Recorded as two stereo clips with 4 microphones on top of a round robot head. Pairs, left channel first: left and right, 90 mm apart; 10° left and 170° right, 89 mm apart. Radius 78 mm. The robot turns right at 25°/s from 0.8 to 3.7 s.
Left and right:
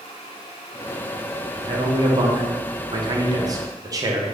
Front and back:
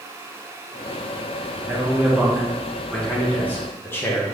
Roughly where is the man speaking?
Right.